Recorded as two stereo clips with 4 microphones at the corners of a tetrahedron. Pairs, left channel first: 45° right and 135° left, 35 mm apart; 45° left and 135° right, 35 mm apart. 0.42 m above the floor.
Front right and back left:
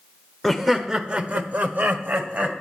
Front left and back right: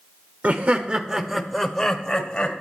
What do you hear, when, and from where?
0.4 s laughter: 130° right, 1.0 m; by 2.6 s 110° left, 2 m